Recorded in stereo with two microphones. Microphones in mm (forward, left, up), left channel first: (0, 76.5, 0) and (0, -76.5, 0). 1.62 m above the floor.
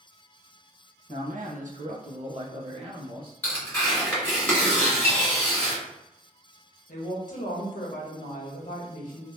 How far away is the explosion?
No explosion in this recording.